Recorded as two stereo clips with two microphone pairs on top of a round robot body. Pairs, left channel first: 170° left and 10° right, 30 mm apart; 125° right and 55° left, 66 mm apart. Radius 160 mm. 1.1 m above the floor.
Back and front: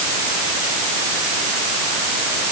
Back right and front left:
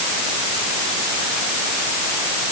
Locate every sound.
Only background noise.